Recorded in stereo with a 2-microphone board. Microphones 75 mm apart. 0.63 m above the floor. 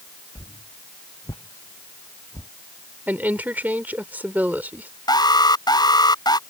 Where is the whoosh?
50° left (ahead or behind).